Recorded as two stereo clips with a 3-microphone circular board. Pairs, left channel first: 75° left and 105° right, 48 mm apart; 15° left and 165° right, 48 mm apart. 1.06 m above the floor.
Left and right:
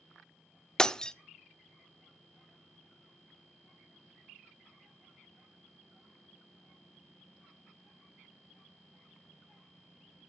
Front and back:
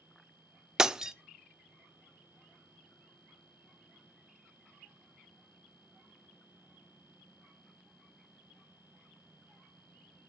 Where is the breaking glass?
130° left, 0.6 m.